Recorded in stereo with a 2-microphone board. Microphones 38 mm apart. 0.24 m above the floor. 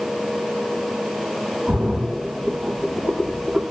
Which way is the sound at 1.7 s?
40° right (ahead or behind).